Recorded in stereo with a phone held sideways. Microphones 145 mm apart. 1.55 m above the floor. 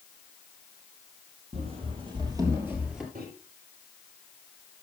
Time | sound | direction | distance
1.5 | running footsteps | 45° right (ahead or behind) | 3 m
3.1 | a microwave | 75° right (ahead or behind) | 4.5 m